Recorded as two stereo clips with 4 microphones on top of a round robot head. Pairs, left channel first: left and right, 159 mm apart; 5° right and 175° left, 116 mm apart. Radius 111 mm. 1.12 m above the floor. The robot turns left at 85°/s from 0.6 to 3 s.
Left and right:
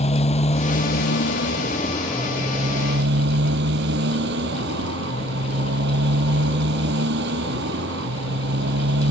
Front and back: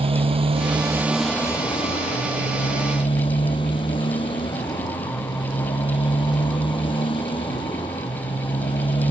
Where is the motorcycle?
140° left; by 9.1 s 65° right.